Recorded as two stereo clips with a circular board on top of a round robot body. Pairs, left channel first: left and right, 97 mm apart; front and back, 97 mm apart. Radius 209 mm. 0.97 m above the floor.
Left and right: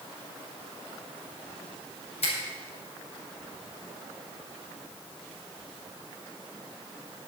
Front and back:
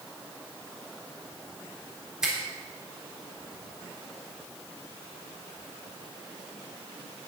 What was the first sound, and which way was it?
A finger snap, 95° left.